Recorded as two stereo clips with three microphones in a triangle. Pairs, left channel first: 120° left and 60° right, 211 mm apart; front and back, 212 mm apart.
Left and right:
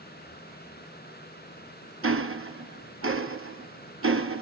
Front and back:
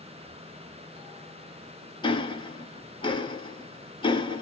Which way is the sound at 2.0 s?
65° right.